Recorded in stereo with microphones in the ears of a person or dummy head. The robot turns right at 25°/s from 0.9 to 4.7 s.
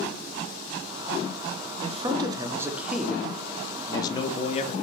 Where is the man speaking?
25° right, 0.7 m; by 4.7 s 45° left, 0.7 m.